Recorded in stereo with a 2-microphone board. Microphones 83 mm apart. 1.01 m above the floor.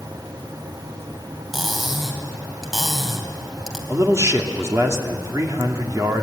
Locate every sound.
1.5 s cutlery clinking: 5° right (ahead or behind), 3.5 m
3.9 s a man speaking: 40° right (ahead or behind), 2.5 m